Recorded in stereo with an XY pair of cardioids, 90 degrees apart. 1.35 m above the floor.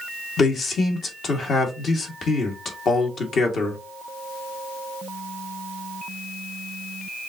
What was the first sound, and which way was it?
A man speaking, 60° left.